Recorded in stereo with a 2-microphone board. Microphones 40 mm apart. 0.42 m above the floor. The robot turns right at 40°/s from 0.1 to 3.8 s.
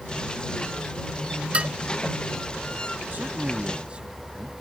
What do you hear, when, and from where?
1.5 s dishes clattering: 30° right (ahead or behind); by 1.7 s 25° right (ahead or behind)
3.1 s a man speaking: 50° right (ahead or behind); by 4.5 s 25° right (ahead or behind)